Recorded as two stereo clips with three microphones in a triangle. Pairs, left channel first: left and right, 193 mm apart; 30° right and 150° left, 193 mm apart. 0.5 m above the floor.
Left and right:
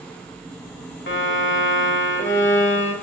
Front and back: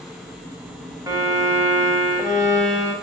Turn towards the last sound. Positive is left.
turn(degrees=80)